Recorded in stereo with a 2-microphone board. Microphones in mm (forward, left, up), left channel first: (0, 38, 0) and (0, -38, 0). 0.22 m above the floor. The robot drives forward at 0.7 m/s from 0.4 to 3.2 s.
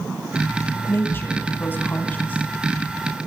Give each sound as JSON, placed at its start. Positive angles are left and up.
{"t": 0.9, "sound": "a woman speaking", "side_deg": 30, "distance_m": 1.8}